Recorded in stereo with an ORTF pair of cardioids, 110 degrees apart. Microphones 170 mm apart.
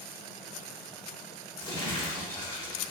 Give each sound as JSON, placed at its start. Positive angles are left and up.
{"t": 1.6, "sound": "crumpling", "azimuth_deg": 20, "distance_m": 1.1}